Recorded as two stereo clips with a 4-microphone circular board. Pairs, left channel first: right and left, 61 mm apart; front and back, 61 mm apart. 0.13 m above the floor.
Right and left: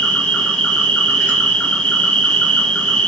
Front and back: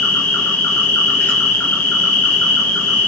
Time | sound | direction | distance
0.0 | an insect | 30° right | 2.5 m